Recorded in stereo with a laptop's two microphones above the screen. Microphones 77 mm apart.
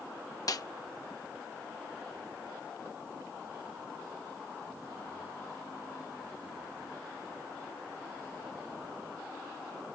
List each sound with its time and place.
0.5 s a snare drum: 55° left (ahead or behind)